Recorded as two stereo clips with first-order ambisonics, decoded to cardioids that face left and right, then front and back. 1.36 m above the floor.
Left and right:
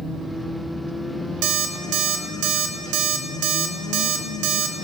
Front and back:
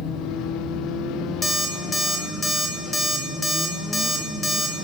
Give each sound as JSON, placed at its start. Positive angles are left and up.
{"t": 1.4, "sound": "an alarm clock", "azimuth_deg": -80, "distance_m": 1.0}